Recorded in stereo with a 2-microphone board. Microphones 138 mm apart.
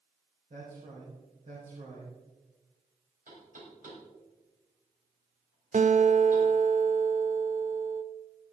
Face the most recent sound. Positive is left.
turn(degrees=-60)  # may be behind; listen again after turning